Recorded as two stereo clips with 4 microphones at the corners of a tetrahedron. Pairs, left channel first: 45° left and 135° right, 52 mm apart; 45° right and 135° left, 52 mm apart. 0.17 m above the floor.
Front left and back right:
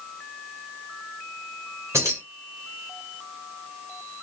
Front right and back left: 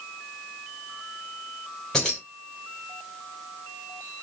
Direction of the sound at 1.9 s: 125° right.